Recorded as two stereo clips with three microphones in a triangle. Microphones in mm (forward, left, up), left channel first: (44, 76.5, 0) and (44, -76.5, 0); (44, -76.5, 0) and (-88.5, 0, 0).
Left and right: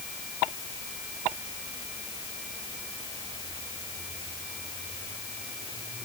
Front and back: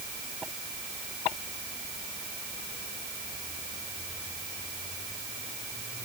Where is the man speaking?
No man speaking in this recording.